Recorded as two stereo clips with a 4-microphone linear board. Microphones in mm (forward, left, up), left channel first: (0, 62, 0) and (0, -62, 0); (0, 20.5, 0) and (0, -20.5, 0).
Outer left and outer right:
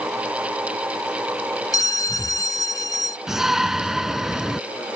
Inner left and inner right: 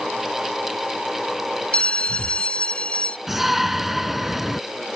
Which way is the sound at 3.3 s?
5° right (ahead or behind).